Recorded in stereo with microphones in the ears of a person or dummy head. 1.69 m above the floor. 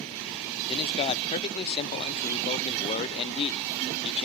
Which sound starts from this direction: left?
A man speaking, at 0.7 s.